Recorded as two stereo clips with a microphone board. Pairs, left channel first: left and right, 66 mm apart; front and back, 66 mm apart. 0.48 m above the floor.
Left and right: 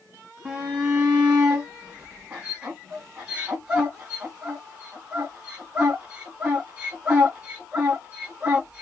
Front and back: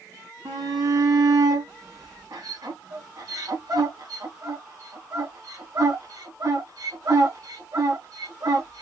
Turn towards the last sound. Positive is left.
turn(degrees=-160)